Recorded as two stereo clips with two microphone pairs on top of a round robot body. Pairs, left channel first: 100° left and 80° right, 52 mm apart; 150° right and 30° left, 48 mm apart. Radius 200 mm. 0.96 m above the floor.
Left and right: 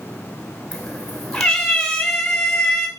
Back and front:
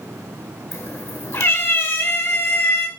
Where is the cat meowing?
Straight behind, 1.8 m.